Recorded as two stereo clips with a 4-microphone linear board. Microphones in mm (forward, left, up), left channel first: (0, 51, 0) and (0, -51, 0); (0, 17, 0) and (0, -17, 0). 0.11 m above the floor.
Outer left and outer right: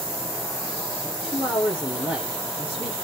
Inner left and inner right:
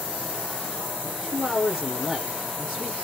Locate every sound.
1.0 s a man speaking: centre (ahead or behind), 1.3 m